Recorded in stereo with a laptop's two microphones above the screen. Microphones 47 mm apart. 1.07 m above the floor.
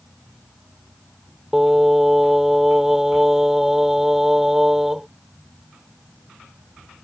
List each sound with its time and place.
1.5 s singing: 10° right (ahead or behind)